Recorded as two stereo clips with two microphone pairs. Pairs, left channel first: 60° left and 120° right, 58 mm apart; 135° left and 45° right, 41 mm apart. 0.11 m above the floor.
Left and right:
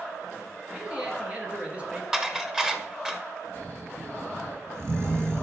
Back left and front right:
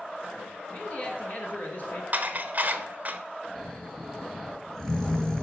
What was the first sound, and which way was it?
A man speaking, 175° left.